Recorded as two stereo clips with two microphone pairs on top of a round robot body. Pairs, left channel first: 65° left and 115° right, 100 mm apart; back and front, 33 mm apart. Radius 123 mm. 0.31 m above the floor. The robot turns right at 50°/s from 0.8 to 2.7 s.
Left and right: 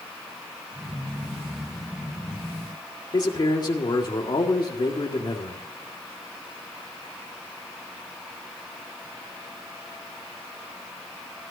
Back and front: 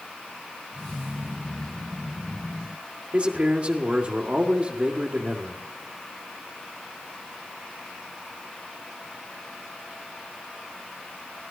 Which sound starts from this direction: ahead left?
A man speaking, at 3.1 s.